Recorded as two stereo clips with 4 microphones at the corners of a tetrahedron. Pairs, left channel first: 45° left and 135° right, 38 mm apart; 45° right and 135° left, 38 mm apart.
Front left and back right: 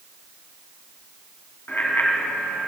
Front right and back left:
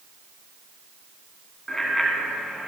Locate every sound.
1.7 s a bicycle bell: 30° left, 2.5 m; by 2.7 s 50° left, 2.5 m